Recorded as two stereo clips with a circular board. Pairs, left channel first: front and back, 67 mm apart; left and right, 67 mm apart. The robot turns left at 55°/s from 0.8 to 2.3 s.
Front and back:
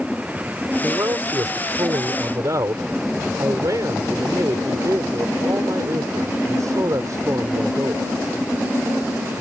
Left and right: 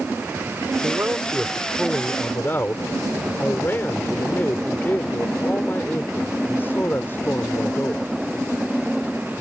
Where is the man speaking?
130° right; by 8.0 s 145° left.